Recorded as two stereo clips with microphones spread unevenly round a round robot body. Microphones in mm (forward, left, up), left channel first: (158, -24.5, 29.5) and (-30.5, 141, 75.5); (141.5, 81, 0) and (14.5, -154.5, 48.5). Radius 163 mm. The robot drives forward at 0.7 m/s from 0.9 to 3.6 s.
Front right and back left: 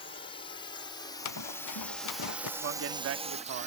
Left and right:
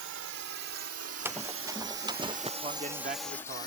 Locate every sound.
0.0 s a drone: 105° right; by 3.7 s 85° left
1.2 s running footsteps: 35° right; by 2.5 s 50° right
2.6 s a man speaking: 170° left; by 3.7 s 175° left